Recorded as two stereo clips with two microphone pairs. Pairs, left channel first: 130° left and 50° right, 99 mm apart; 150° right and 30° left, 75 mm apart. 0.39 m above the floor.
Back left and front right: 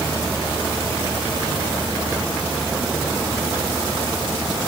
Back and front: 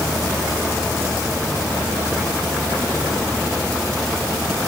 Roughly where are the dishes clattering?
I don't hear dishes clattering.